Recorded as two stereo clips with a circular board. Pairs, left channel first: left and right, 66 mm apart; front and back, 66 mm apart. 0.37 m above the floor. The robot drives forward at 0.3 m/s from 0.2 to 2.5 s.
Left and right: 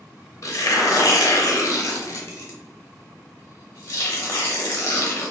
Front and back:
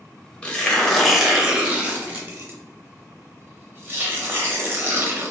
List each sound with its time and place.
0.4 s tearing paper: 70° left, 0.6 m; by 5.3 s 130° left, 0.7 m